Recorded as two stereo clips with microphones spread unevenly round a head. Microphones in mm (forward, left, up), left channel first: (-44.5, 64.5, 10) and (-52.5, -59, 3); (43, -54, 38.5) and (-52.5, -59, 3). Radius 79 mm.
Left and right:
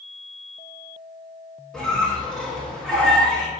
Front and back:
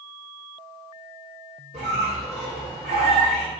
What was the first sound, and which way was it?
A squeak, 170° left.